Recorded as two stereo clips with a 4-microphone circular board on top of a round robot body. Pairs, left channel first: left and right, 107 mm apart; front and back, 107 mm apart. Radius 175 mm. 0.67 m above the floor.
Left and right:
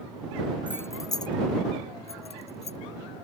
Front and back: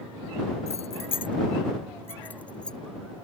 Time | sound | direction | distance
0.7 | keys jangling | 15° left | ?